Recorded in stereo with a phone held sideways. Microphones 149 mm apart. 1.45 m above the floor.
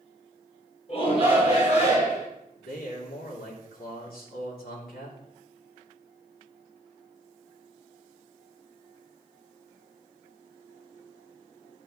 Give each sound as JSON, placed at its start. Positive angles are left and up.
{"t": 0.9, "sound": "a shout", "side_deg": 40, "distance_m": 4.0}
{"t": 2.5, "sound": "a man speaking", "side_deg": 85, "distance_m": 3.5}